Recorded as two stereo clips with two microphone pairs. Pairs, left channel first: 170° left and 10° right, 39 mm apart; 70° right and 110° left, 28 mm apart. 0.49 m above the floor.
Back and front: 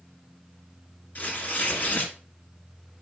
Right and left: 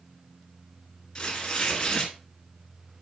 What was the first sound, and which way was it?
Tearing paper, 145° right.